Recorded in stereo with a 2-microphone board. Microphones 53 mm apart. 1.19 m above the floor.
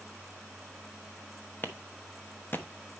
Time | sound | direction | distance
1.6 | a clap | 35° left (ahead or behind) | 1.0 m